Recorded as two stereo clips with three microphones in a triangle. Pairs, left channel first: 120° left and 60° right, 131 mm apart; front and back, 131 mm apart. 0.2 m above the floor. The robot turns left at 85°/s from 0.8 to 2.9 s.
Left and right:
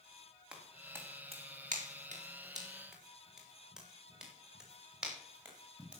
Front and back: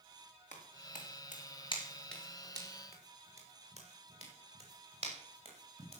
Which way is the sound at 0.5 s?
25° left.